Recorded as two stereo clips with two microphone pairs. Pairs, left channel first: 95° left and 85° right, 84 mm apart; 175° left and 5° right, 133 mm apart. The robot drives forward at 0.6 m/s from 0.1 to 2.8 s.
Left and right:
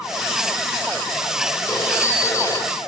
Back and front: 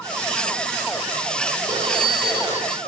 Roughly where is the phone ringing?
Ahead left.